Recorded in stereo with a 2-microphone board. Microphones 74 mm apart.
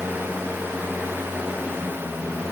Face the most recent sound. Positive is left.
No sound to turn to.